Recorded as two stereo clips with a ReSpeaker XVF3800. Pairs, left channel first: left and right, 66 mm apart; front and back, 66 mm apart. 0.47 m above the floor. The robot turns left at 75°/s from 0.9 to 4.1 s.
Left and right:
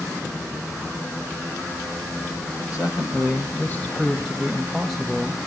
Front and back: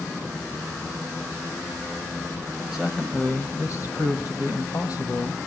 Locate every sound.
2.7 s a man speaking: 105° left, 3 m; by 5.4 s straight ahead, 3 m